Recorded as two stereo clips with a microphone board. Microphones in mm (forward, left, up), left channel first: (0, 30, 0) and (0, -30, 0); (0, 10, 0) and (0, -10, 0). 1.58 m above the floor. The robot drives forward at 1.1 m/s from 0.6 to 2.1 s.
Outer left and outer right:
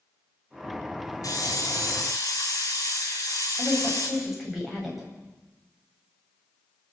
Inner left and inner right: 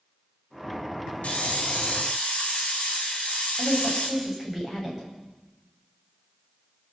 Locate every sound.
1.2 s a hiss: 75° left (ahead or behind), 5.5 m; by 4.1 s 70° left (ahead or behind), 5.5 m
3.6 s a woman speaking: centre (ahead or behind), 9.5 m